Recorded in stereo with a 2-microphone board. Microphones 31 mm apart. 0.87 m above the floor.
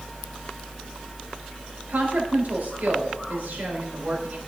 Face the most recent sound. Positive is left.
turn(degrees=-70)  # may be behind; listen again after turning